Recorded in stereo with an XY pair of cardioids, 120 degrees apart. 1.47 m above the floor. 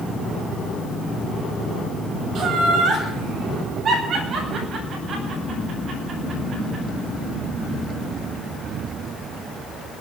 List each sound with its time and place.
2.4 s laughter: 55° right, 8.5 m; by 6.8 s 50° right, 10.5 m